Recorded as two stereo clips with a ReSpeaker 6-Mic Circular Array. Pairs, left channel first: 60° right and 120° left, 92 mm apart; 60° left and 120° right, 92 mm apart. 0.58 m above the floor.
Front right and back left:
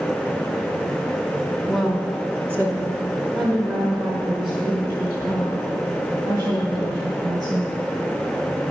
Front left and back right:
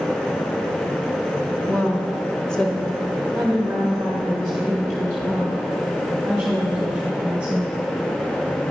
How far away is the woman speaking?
About 0.9 m.